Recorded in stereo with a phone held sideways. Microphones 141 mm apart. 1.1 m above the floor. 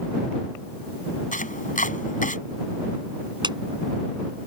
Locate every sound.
1.3 s chopping: 70° left (ahead or behind)
3.4 s a clap: 30° right (ahead or behind)